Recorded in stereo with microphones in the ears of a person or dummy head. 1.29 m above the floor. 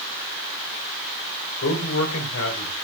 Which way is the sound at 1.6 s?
80° left.